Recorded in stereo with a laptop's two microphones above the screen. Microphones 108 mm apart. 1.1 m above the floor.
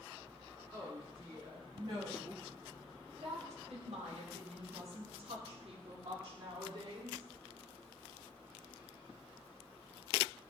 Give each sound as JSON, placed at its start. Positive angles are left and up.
{"t": 0.7, "sound": "a woman speaking", "side_deg": -35, "distance_m": 2.5}